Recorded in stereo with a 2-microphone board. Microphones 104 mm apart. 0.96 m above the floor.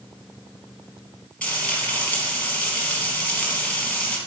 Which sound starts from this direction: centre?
Frying, at 1.4 s.